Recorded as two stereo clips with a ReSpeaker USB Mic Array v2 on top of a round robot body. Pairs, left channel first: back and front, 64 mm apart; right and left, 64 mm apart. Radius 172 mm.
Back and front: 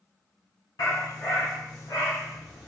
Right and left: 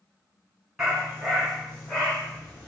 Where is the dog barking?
175° left, 2 m; by 2.7 s 155° right, 1.9 m.